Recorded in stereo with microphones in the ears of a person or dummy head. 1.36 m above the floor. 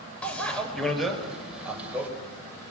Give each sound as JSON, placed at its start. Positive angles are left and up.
{"t": 0.2, "sound": "a bicycle bell", "side_deg": 5, "distance_m": 4.5}